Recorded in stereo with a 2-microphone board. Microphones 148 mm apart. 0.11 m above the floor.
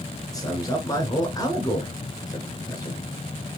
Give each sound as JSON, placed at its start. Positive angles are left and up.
{"t": 0.3, "sound": "a man speaking", "side_deg": 25, "distance_m": 1.4}